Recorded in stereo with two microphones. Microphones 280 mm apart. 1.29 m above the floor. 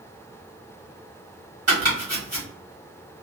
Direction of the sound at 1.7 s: 65° right (ahead or behind).